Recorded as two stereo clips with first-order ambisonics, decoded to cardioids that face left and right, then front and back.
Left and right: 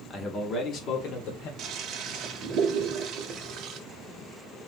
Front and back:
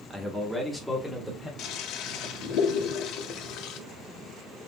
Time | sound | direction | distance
0.1 | a man speaking | 125° left | 0.9 m
1.6 | a toilet flushing | 40° right | 0.6 m